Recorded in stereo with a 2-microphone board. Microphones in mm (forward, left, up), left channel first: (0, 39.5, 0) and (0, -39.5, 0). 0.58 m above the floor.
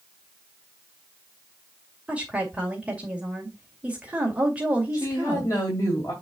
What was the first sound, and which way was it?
A woman speaking, 15° right (ahead or behind).